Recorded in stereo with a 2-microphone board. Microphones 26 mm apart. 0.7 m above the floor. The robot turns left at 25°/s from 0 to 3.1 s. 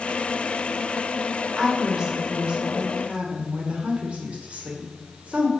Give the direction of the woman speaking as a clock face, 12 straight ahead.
1 o'clock.